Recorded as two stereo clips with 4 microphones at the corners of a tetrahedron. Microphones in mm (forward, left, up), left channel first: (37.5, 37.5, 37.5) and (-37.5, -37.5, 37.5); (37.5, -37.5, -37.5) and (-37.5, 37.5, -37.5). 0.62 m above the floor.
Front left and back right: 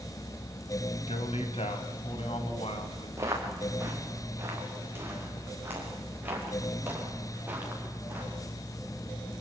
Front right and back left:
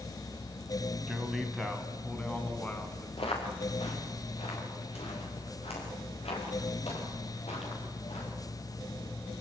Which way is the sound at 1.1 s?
50° left.